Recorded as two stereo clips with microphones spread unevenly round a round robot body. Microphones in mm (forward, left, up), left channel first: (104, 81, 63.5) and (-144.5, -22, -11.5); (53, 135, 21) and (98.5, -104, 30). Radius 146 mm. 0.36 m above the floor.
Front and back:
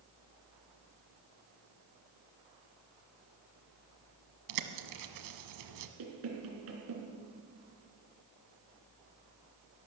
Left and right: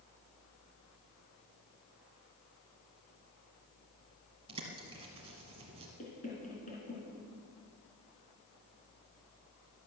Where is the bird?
150° right, 1.1 m.